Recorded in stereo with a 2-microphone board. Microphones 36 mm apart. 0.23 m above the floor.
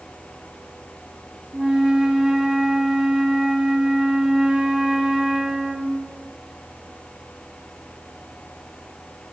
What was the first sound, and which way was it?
A flute, 20° right (ahead or behind).